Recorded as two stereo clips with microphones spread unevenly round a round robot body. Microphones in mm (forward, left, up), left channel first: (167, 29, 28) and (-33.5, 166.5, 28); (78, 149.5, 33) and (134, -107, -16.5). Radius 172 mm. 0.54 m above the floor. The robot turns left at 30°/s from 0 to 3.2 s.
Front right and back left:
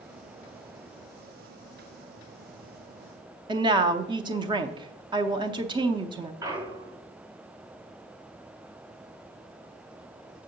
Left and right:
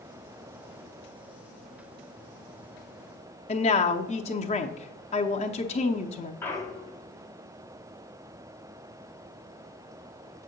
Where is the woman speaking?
150° left, 0.6 m.